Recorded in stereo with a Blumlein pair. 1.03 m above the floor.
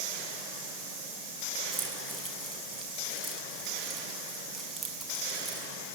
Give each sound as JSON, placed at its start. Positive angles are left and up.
{"t": 1.7, "sound": "keys jangling", "azimuth_deg": -10, "distance_m": 6.0}